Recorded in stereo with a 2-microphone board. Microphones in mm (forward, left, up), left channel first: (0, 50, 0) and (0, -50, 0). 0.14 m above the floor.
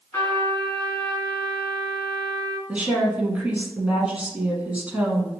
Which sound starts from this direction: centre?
A woman speaking, at 2.7 s.